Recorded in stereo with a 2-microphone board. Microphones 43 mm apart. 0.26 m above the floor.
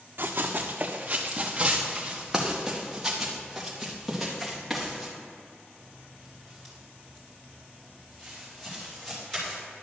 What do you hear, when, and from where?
0.2 s running footsteps: 55° right (ahead or behind), 1.1 m; by 9.5 s 10° left (ahead or behind), 6.5 m